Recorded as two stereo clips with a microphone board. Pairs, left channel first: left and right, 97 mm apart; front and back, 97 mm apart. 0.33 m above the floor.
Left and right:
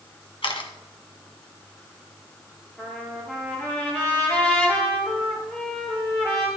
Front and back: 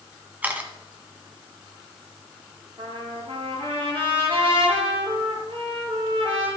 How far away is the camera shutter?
About 1.7 m.